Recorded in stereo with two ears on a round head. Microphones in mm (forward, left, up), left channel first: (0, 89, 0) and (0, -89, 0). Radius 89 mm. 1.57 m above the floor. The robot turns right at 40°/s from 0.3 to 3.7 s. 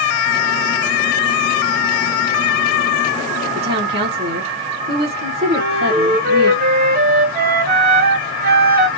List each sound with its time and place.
3.5 s a woman speaking: 60° right (ahead or behind), 2 m; by 6.5 s 50° right (ahead or behind), 2 m
5.5 s a flute: 50° right (ahead or behind), 3.5 m